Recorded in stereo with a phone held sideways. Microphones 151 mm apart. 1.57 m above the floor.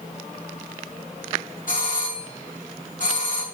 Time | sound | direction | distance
1.7 | a doorbell | 60° left (ahead or behind) | 2.5 m